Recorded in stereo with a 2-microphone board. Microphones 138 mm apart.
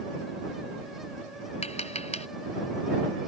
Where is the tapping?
55° left (ahead or behind).